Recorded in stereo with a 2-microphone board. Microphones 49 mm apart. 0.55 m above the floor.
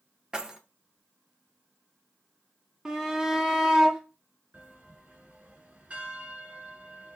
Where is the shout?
10° right (ahead or behind), 0.9 m.